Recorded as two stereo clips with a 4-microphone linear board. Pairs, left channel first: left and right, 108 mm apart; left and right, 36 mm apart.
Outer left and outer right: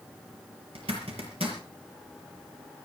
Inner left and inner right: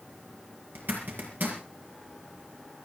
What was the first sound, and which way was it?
A zipper, 70° right (ahead or behind).